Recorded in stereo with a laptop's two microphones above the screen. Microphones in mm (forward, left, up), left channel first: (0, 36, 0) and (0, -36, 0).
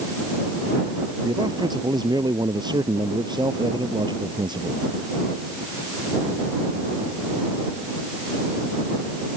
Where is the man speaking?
80° right; by 4.9 s 85° right.